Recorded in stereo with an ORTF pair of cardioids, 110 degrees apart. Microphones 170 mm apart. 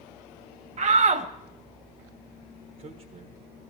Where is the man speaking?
60° right, 1.5 m.